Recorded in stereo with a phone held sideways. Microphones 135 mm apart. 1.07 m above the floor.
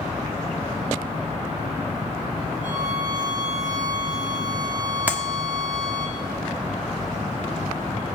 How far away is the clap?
About 1.1 m.